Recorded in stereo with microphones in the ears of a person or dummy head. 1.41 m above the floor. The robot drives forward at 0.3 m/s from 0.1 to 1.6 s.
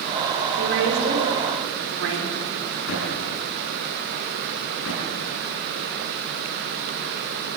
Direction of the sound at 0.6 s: 65° right (ahead or behind).